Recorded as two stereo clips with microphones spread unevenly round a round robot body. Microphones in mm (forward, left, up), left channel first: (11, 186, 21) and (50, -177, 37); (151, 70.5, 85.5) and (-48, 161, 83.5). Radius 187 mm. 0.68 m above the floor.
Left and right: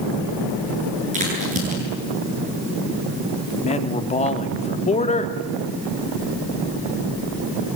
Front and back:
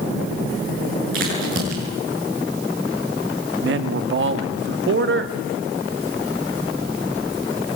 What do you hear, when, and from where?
1.1 s a crack: 155° right, 8 m
3.6 s a man speaking: 165° left, 1.6 m